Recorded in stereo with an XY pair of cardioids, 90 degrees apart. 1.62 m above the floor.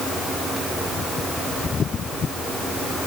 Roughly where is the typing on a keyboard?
No typing on a keyboard in this recording.